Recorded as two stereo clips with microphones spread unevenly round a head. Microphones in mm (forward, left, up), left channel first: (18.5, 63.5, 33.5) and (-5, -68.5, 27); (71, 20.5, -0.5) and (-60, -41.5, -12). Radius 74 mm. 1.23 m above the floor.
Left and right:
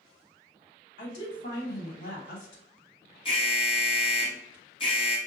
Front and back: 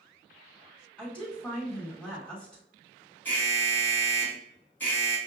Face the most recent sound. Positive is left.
turn(degrees=105)